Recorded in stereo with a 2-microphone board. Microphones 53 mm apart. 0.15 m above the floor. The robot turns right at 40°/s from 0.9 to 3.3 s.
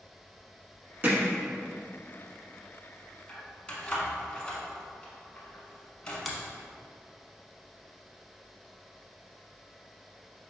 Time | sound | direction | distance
1.0 | hammering | 35° right (ahead or behind) | 0.9 m
3.3 | keys jangling | 20° left (ahead or behind) | 0.9 m
6.2 | a finger snap | centre (ahead or behind) | 0.8 m